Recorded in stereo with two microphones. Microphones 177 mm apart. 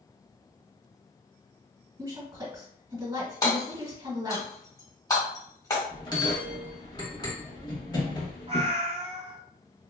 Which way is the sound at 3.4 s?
25° left (ahead or behind).